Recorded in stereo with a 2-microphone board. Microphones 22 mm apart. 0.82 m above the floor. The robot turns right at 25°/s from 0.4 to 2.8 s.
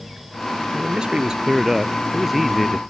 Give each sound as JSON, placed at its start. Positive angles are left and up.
{"t": 0.7, "sound": "a man speaking", "azimuth_deg": -40}